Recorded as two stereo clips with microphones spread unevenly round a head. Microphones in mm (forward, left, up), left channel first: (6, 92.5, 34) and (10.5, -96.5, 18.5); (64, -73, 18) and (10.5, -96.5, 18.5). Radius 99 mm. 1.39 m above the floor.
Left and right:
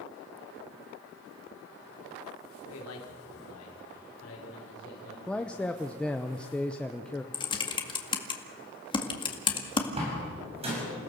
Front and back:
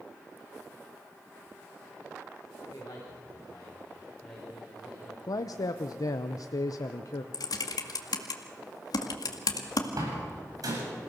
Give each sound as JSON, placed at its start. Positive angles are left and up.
{"t": 2.7, "sound": "a man speaking", "azimuth_deg": 80, "distance_m": 4.0}
{"t": 5.3, "sound": "a man speaking", "azimuth_deg": 5, "distance_m": 0.8}
{"t": 7.3, "sound": "typing on a keyboard", "azimuth_deg": 25, "distance_m": 1.9}
{"t": 10.0, "sound": "a door slam", "azimuth_deg": -150, "distance_m": 8.0}